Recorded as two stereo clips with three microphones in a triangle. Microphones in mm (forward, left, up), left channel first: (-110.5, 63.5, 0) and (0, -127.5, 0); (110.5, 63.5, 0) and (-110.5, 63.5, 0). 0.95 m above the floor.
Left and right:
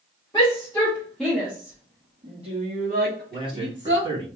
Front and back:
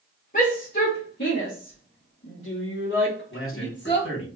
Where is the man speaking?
10° left, 2.5 m.